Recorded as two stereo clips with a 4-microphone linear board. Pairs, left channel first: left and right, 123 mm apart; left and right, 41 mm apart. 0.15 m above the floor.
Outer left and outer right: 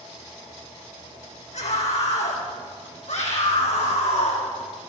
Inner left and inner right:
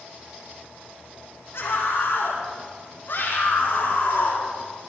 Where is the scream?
75° left (ahead or behind), 6 m; by 4.5 s 70° left (ahead or behind), 4.5 m.